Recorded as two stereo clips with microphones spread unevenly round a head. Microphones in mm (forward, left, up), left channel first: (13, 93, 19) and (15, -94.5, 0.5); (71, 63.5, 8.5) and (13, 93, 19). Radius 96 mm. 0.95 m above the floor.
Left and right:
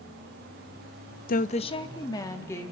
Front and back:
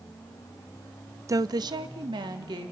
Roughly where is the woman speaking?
Behind left.